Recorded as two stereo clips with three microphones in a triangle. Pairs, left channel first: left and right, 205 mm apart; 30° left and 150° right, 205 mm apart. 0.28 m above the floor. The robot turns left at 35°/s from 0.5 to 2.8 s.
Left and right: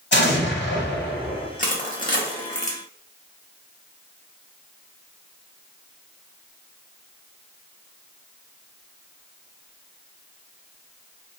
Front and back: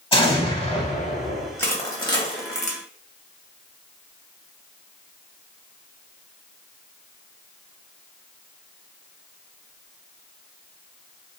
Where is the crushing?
100° left, 0.7 m; by 2.8 s 60° left, 0.7 m.